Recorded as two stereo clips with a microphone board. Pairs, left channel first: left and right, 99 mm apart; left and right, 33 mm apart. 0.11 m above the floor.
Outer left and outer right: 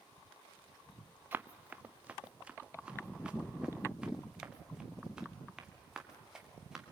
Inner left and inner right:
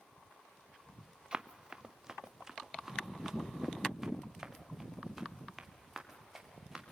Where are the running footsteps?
20° right (ahead or behind), 0.9 m; by 6.8 s 5° right (ahead or behind), 4 m.